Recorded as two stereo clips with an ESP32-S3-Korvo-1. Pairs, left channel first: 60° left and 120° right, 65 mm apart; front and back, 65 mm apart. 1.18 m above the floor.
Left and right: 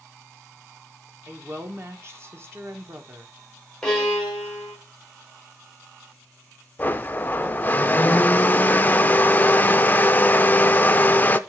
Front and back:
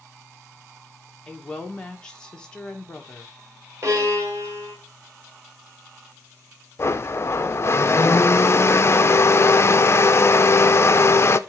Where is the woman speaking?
75° right, 1.5 m.